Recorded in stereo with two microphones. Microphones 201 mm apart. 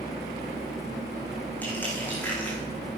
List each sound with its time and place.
1.6 s crushing: 10° left (ahead or behind), 5.5 m